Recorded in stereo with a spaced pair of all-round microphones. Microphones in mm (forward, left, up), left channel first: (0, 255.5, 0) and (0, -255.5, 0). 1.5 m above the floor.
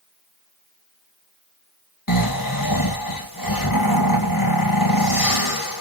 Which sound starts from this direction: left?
Snoring, at 2.1 s.